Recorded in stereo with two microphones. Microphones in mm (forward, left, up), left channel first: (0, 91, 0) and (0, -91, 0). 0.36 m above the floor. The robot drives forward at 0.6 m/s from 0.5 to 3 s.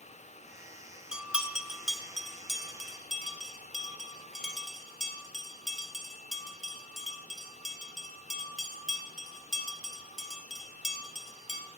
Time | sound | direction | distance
1.1 | a bell | 5° right (ahead or behind) | 0.6 m